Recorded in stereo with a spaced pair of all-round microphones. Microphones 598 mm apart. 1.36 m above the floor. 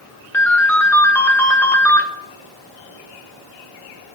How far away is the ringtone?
About 0.9 m.